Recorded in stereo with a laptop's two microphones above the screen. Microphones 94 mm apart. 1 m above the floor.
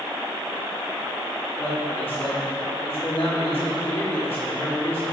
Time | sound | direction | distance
1.6 | a man speaking | 75° left (ahead or behind) | 2.5 m